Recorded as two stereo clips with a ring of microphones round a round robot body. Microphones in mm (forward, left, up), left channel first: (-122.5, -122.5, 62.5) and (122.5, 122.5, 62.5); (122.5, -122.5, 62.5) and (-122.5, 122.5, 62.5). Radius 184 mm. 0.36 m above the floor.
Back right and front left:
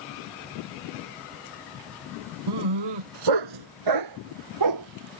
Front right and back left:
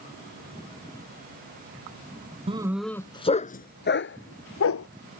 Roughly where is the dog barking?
Ahead left.